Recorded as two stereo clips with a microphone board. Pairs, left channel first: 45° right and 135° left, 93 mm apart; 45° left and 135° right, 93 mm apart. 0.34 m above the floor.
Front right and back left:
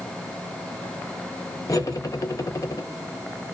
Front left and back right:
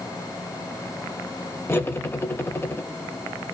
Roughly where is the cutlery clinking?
Ahead.